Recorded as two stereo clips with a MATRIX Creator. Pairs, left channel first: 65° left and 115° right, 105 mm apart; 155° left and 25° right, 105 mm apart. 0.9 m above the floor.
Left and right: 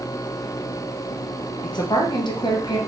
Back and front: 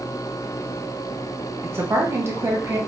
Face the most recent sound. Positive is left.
turn(degrees=40)